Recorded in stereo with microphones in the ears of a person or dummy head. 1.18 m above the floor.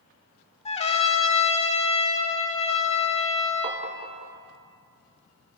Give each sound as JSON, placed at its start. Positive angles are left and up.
{"t": 0.7, "sound": "a trumpet", "side_deg": 30, "distance_m": 0.9}
{"t": 3.6, "sound": "tapping", "side_deg": -30, "distance_m": 0.7}